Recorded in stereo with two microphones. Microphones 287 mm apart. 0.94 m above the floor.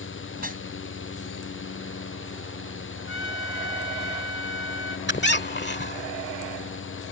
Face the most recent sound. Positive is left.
turn(degrees=40)  # may be behind; listen again after turning